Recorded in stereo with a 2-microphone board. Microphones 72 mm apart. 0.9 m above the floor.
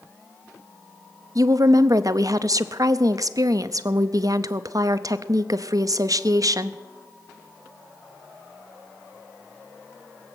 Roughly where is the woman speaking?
Right.